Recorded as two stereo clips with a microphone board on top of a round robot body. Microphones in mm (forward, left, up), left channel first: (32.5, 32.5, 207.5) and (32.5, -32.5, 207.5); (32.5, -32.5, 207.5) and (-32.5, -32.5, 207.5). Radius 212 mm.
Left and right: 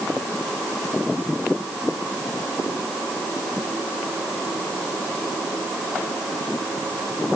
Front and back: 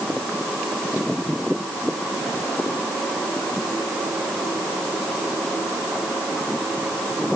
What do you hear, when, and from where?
Only background noise.